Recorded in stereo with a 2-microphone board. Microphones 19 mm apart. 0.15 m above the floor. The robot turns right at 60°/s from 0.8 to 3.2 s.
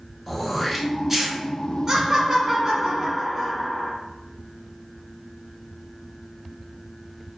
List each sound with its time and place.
0.3 s throat clearing: centre (ahead or behind), 0.6 m; by 1.4 s 25° right (ahead or behind), 0.6 m
1.9 s laughter: 20° right (ahead or behind), 1.0 m; by 3.9 s 5° right (ahead or behind), 1.0 m